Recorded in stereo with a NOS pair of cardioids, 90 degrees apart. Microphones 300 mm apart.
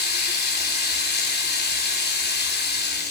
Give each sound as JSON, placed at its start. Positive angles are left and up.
{"t": 0.0, "sound": "running water", "azimuth_deg": 35, "distance_m": 3.5}